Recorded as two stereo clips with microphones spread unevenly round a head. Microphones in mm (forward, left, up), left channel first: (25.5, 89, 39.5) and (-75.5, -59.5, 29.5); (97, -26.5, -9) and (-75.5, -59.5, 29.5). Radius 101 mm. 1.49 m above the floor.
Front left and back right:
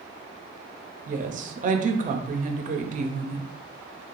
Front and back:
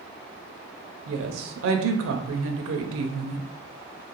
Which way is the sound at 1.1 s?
170° right.